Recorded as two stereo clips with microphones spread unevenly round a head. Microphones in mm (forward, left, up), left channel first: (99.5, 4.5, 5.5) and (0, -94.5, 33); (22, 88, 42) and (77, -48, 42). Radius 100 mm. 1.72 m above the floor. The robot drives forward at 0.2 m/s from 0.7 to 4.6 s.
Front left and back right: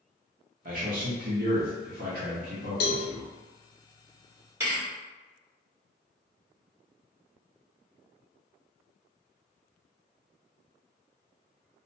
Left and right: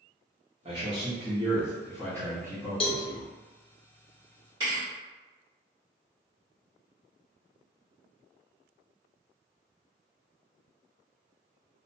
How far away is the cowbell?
About 0.6 m.